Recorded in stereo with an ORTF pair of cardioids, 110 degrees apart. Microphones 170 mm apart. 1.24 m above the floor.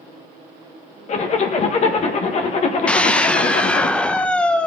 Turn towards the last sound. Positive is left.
turn(degrees=5)